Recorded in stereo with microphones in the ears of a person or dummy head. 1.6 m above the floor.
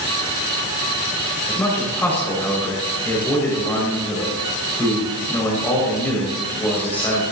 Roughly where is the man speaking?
Centre.